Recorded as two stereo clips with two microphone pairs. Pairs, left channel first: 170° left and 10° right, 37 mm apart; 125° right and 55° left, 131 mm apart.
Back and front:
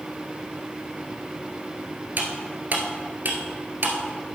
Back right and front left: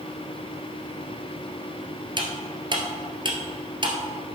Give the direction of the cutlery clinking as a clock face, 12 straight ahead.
12 o'clock.